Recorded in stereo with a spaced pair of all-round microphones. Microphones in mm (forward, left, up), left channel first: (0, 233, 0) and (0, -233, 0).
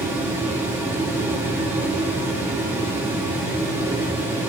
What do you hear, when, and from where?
0.0 s a fan: 5° right (ahead or behind), 1.4 m